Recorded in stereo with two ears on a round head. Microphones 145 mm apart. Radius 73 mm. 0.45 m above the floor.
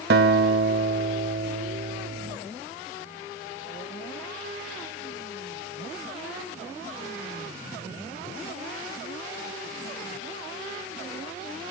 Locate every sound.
0.1 s a guitar: 65° right (ahead or behind), 1.0 m